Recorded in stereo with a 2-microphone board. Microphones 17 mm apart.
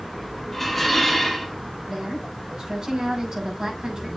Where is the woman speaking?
50° right (ahead or behind), 7 m.